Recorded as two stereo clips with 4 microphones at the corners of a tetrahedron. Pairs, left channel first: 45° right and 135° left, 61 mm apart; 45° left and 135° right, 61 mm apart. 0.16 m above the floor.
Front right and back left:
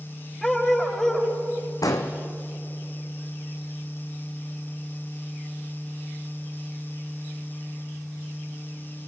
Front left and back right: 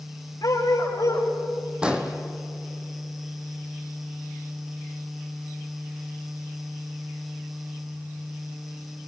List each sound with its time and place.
0.4 s a dog barking: 35° left, 9.5 m
1.8 s an explosion: 60° right, 1.8 m